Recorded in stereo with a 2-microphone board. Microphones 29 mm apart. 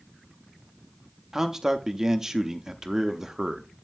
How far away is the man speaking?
About 0.7 m.